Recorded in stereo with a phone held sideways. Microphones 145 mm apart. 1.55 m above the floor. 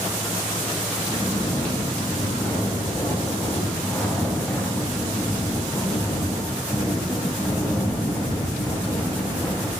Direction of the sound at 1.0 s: 15° left (ahead or behind).